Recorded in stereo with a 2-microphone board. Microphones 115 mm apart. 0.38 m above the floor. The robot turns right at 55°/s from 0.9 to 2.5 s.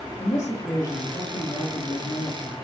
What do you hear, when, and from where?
0.2 s a woman speaking: 25° left, 7 m; by 2.5 s 110° left, 7 m